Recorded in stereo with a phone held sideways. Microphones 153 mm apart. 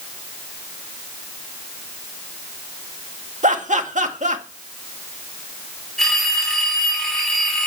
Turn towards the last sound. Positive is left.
turn(degrees=0)  # may be behind; listen again after turning